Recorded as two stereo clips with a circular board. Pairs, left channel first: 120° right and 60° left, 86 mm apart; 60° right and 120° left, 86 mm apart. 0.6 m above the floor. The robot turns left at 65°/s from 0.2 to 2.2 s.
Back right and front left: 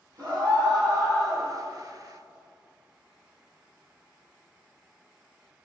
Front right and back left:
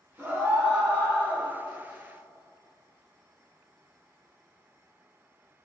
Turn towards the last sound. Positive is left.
turn(degrees=-65)